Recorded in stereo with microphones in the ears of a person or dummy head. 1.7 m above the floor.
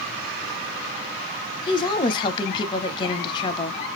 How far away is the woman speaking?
About 0.6 m.